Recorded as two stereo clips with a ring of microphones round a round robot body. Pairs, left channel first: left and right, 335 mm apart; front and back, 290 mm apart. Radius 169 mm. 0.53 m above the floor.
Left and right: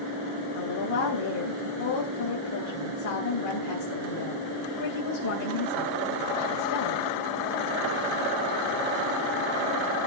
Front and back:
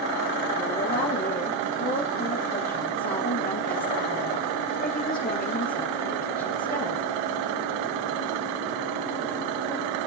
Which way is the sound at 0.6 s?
60° left.